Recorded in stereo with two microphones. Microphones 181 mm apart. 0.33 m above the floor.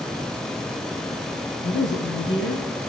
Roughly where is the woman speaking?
Left.